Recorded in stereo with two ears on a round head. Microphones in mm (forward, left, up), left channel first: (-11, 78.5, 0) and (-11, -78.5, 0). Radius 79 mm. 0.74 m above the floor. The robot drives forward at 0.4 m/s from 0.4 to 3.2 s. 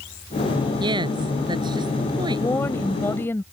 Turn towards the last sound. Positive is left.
turn(degrees=15)  # may be behind; listen again after turning